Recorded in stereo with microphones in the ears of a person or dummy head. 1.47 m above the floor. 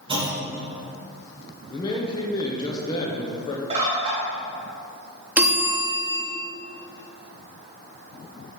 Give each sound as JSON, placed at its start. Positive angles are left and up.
{"t": 0.1, "sound": "a clunk", "side_deg": -30, "distance_m": 1.5}
{"t": 1.7, "sound": "a man speaking", "side_deg": 25, "distance_m": 0.8}
{"t": 3.7, "sound": "a bird", "side_deg": -35, "distance_m": 1.8}
{"t": 5.4, "sound": "a bell", "side_deg": -10, "distance_m": 1.4}